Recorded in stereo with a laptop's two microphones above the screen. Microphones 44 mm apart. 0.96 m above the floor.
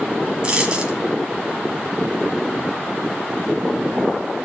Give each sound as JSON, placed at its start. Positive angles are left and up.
{"t": 0.4, "sound": "a dropped coin", "side_deg": -20, "distance_m": 1.5}